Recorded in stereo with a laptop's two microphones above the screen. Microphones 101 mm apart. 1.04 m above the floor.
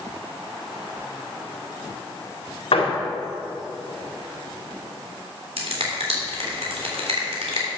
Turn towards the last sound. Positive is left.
turn(degrees=-80)